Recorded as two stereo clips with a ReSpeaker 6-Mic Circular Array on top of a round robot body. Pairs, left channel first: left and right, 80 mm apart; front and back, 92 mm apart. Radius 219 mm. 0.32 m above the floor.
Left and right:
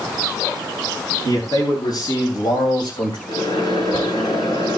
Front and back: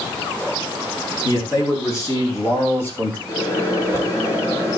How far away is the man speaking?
About 4.5 m.